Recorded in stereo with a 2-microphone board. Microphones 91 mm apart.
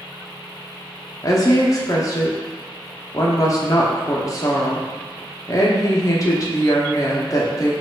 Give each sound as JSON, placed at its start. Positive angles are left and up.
{"t": 1.2, "sound": "a woman speaking", "side_deg": 40, "distance_m": 0.9}